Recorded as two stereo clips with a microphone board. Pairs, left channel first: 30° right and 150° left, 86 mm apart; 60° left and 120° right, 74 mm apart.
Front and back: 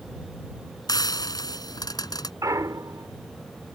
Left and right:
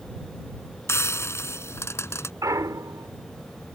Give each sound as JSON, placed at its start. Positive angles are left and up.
{"t": 0.9, "sound": "frying", "azimuth_deg": 10}
{"t": 2.4, "sound": "a clunk", "azimuth_deg": -160}